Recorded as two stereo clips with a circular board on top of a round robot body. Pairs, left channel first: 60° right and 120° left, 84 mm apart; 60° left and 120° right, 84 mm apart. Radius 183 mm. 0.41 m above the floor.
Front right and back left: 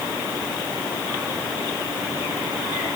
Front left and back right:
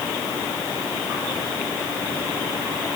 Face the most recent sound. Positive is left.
No sound to turn to.